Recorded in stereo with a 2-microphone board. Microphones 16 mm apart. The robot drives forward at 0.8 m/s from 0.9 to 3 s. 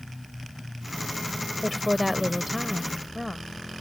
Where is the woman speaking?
5° right (ahead or behind).